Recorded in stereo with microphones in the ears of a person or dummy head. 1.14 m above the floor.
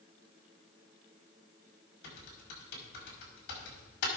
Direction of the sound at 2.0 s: 65° left (ahead or behind).